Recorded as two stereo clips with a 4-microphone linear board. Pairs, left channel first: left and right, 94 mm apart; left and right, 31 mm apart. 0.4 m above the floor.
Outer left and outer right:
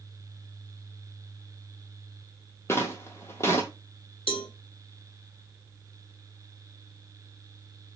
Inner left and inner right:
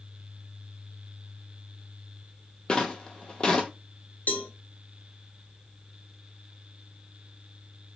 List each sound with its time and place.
2.7 s footsteps: 25° left (ahead or behind), 0.7 m
4.3 s a cowbell: 70° left (ahead or behind), 0.5 m